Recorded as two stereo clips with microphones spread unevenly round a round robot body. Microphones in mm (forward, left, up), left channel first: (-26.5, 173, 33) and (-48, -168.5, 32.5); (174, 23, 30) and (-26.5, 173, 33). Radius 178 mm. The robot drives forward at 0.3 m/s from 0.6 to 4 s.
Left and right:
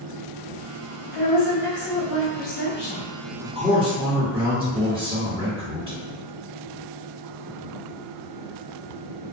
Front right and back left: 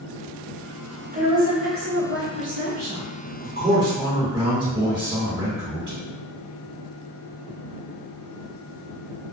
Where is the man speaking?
165° right, 1.6 m.